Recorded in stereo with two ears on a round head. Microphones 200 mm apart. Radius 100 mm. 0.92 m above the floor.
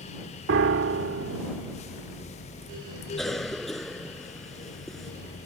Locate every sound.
0.5 s a piano: 60° right (ahead or behind)
3.2 s a cough: centre (ahead or behind)